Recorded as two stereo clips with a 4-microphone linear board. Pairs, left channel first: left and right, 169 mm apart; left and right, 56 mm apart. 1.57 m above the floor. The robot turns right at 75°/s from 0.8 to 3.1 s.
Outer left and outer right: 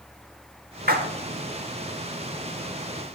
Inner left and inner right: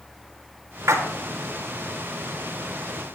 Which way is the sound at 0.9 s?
60° right (ahead or behind).